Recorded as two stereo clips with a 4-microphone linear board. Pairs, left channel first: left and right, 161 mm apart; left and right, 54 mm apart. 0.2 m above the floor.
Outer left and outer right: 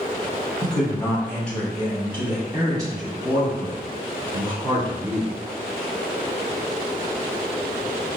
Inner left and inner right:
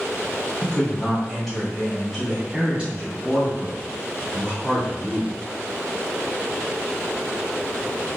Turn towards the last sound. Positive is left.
turn(degrees=-55)  # may be behind; listen again after turning